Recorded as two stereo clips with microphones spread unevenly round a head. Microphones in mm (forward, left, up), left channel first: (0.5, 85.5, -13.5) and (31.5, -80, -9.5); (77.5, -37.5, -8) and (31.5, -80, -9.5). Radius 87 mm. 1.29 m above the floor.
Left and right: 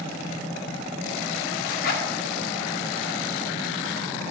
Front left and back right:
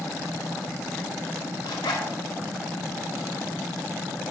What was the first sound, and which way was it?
A zipper, 70° left.